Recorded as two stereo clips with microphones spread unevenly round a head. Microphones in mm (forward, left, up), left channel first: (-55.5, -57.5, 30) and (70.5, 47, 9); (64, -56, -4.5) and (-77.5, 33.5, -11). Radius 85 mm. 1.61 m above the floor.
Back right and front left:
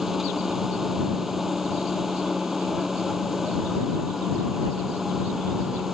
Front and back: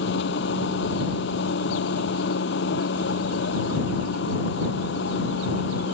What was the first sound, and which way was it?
A machine running, 50° right.